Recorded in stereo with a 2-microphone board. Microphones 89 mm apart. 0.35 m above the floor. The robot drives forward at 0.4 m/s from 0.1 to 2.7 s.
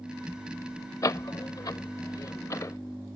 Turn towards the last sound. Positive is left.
turn(degrees=40)  # may be behind; listen again after turning